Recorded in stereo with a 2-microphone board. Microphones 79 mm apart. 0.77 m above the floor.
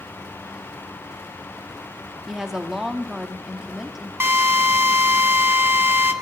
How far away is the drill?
About 1.0 m.